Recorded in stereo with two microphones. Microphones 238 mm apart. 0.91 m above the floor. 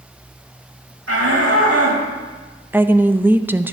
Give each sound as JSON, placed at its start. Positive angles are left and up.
{"t": 1.1, "sound": "a shout", "side_deg": -80, "distance_m": 4.0}
{"t": 2.7, "sound": "a woman speaking", "side_deg": -10, "distance_m": 0.5}